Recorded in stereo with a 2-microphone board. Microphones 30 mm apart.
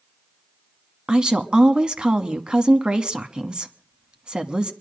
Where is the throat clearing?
No throat clearing in this recording.